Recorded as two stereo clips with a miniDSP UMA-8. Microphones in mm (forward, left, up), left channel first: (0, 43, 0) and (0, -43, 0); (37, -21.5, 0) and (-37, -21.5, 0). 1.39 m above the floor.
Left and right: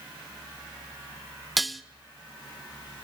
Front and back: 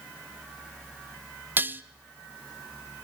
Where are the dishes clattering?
Straight behind, 0.5 m.